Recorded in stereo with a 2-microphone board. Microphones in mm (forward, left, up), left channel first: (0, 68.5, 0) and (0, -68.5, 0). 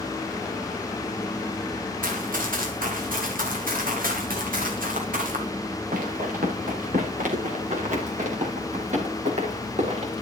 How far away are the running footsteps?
About 7.5 m.